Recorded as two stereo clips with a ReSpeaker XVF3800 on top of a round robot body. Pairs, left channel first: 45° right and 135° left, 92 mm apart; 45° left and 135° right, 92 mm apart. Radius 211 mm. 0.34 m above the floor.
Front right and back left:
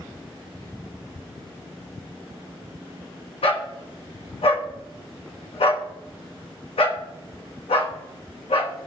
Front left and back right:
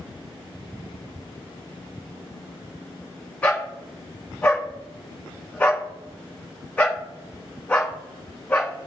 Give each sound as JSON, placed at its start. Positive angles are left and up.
{"t": 3.4, "sound": "a dog barking", "azimuth_deg": -30, "distance_m": 1.9}